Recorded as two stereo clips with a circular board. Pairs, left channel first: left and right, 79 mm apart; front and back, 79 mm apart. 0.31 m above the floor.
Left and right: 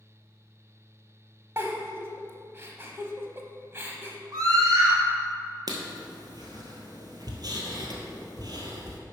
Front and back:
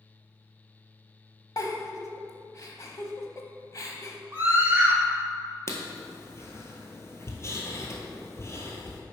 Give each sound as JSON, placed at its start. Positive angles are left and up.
{"t": 1.6, "sound": "a giggle", "azimuth_deg": -35, "distance_m": 0.9}
{"t": 4.3, "sound": "a scream", "azimuth_deg": -115, "distance_m": 2.5}
{"t": 5.7, "sound": "writing", "azimuth_deg": -55, "distance_m": 1.4}